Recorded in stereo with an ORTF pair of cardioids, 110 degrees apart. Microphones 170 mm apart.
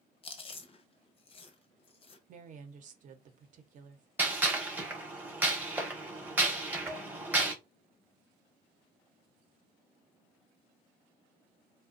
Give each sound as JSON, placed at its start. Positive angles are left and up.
{"t": 0.2, "sound": "chewing", "azimuth_deg": 35, "distance_m": 0.7}
{"t": 2.3, "sound": "a woman speaking", "azimuth_deg": -50, "distance_m": 0.8}
{"t": 4.2, "sound": "a gunshot", "azimuth_deg": -10, "distance_m": 0.8}
{"t": 6.9, "sound": "dishes clattering", "azimuth_deg": -20, "distance_m": 0.9}